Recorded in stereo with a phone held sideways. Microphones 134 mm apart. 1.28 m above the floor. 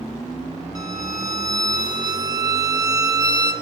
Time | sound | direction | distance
0.8 | a violin | 30° right (ahead or behind) | 4 m